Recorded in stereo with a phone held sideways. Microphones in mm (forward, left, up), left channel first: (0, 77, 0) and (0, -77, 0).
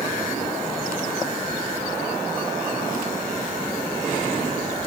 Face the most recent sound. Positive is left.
No sound to turn to.